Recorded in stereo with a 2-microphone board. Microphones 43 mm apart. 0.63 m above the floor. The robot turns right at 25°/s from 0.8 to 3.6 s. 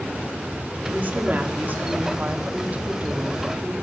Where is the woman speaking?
110° right, 1.4 m; by 3.7 s 40° right, 1.4 m.